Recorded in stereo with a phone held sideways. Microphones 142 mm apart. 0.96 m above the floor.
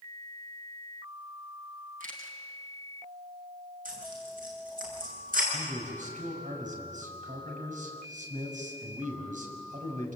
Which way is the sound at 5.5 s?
65° right (ahead or behind).